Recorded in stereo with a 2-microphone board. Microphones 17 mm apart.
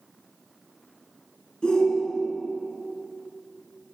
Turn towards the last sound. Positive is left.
turn(degrees=55)  # may be behind; listen again after turning